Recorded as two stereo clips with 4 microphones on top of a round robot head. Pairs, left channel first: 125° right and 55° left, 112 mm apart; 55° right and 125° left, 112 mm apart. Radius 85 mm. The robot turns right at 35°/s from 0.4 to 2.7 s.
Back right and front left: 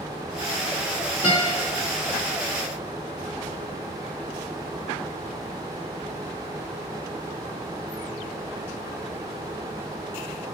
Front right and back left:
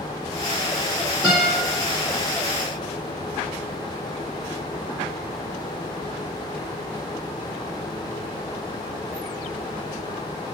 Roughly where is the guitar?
Behind.